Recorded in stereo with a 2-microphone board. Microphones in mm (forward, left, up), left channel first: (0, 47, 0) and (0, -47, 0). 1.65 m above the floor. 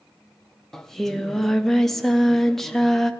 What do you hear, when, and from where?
0.7 s singing: centre (ahead or behind), 0.5 m